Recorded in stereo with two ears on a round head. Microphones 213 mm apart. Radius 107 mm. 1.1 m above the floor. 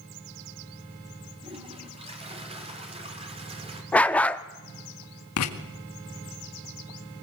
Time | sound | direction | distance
1.4 | a toilet flushing | 25° right (ahead or behind) | 3.5 m
3.9 | a dog barking | 5° left (ahead or behind) | 0.7 m
5.4 | writing | 65° left (ahead or behind) | 2.0 m